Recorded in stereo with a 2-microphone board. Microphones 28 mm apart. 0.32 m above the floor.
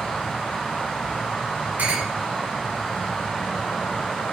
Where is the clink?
75° right (ahead or behind), 3 m.